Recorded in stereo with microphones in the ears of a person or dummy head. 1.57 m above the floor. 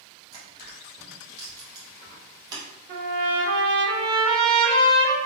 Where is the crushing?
25° right (ahead or behind), 1.2 m.